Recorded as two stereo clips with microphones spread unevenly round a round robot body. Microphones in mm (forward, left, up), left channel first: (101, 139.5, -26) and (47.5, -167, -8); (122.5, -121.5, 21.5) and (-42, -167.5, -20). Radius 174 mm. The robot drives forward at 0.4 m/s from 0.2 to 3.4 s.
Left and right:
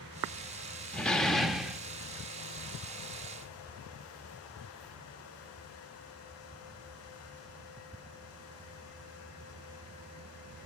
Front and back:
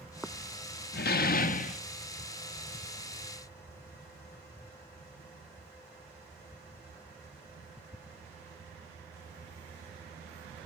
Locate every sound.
0.9 s a door slam: 5° right, 0.8 m; by 1.8 s 10° right, 0.6 m